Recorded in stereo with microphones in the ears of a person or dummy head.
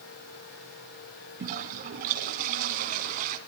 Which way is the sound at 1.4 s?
45° right (ahead or behind).